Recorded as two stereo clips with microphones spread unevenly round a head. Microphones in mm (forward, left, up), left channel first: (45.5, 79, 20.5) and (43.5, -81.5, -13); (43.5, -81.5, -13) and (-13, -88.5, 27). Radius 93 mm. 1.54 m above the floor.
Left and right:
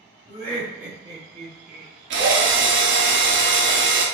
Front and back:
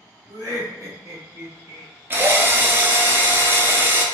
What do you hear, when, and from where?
0.3 s laughter: 160° left, 0.9 m; by 1.9 s 135° right, 1.1 m
2.1 s a drill: 130° right, 0.8 m